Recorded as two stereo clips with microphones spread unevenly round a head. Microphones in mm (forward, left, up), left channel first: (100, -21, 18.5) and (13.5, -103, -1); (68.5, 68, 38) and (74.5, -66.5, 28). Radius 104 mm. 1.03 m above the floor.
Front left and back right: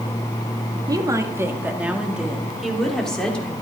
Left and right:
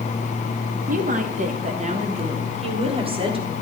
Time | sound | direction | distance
0.9 | a woman speaking | 80° right | 2 m